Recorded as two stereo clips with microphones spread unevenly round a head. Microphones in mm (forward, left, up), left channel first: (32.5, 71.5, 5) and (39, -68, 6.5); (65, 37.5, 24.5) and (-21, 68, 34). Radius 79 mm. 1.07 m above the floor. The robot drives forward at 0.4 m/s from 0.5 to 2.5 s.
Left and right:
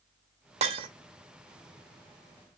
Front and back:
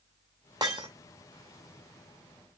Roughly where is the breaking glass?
Behind right.